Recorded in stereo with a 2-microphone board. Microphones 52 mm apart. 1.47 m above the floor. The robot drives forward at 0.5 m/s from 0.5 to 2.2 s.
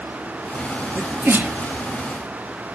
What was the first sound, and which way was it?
A sneeze, 40° right (ahead or behind).